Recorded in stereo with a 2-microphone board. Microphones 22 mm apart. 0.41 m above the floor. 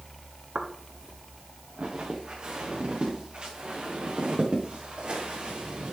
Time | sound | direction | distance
0.6 | footsteps | 55° right (ahead or behind) | 2.5 m